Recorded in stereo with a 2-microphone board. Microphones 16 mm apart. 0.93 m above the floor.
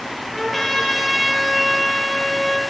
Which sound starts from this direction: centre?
A trumpet, at 0.3 s.